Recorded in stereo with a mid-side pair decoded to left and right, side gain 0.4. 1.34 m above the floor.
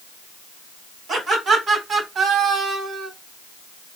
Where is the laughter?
55° right, 3 m; by 3.1 s 80° right, 1.9 m.